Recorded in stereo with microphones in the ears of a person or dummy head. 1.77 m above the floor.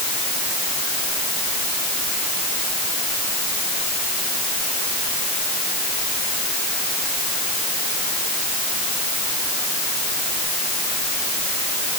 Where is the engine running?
No engine running in this recording.